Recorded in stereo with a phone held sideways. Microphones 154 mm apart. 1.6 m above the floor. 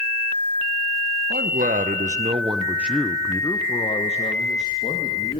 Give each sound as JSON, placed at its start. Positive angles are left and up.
{"t": 1.3, "sound": "a man speaking", "side_deg": -75, "distance_m": 1.7}